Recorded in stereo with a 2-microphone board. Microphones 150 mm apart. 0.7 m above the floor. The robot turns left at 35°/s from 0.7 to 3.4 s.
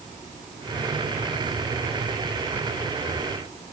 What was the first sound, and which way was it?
Only background noise.